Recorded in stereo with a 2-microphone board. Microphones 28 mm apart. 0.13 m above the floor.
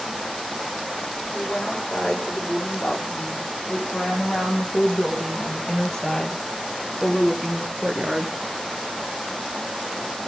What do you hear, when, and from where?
1.3 s a woman speaking: 35° left (ahead or behind), 8.5 m; by 8.4 s 30° right (ahead or behind), 1.9 m